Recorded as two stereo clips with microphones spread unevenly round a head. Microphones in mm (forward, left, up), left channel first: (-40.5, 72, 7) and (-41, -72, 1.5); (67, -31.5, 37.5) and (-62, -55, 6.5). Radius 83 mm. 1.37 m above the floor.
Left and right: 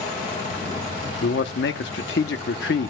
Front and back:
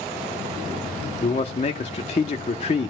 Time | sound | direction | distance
1.2 | a man speaking | 65° left | 1.0 m